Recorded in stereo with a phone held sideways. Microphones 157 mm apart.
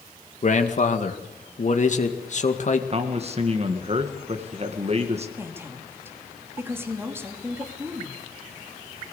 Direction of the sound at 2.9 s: 40° right (ahead or behind).